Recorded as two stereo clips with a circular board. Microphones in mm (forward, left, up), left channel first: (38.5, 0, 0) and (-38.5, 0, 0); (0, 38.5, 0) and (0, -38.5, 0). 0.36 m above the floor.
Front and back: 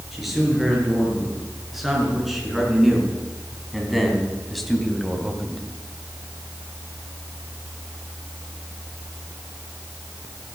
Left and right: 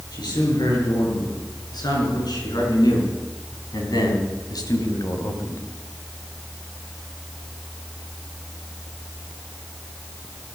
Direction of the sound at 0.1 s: 90° left.